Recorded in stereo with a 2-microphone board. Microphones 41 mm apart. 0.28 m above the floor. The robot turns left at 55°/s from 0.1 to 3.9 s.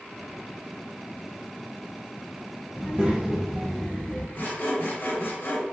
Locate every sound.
2.8 s a child speaking: 135° right, 0.6 m; by 4.2 s 165° left, 0.6 m
4.3 s sawing: 50° left (ahead or behind), 1.3 m